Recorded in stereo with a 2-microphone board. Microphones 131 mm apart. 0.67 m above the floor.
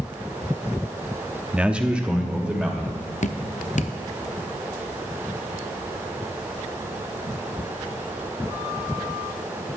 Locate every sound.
1.5 s a man speaking: 10° right (ahead or behind), 0.7 m
3.2 s dripping: 60° left (ahead or behind), 0.6 m